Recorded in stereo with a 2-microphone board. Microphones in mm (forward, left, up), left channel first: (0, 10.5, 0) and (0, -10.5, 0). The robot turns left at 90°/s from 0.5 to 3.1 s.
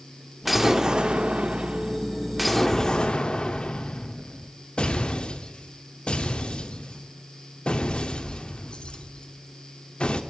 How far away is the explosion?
About 0.8 m.